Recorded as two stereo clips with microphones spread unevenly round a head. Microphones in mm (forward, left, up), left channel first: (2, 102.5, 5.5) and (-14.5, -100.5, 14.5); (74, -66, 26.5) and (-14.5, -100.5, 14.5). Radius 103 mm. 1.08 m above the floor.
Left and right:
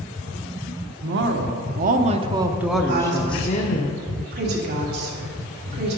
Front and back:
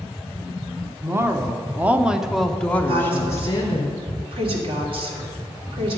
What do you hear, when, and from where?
1.0 s a woman speaking: 110° right, 1.1 m; by 3.9 s 65° left, 0.9 m
2.9 s a woman speaking: 135° right, 2.5 m